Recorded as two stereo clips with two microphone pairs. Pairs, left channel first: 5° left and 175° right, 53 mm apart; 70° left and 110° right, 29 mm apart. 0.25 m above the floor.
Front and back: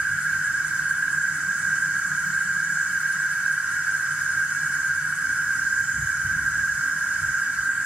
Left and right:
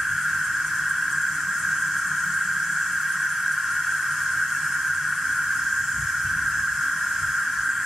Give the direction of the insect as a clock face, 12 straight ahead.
6 o'clock.